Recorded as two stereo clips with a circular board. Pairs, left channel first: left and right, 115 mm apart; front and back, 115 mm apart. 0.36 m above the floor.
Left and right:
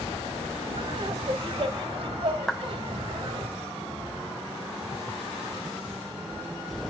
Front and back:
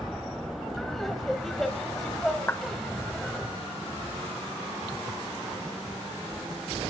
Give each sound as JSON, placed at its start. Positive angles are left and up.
{"t": 0.8, "sound": "laughter", "azimuth_deg": -85, "distance_m": 1.8}
{"t": 2.5, "sound": "a clap", "azimuth_deg": 5, "distance_m": 0.9}